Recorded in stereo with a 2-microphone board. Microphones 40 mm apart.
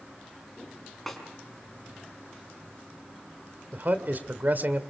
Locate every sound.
1.1 s a snare drum: 5° left (ahead or behind), 5 m
3.7 s a man speaking: 50° right (ahead or behind), 2 m